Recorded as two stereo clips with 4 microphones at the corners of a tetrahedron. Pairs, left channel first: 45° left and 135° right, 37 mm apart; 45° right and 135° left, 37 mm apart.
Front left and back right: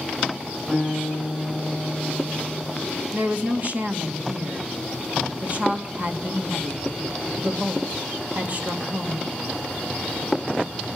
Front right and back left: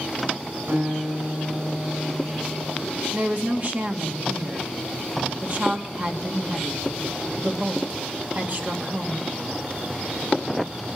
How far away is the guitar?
About 8.5 m.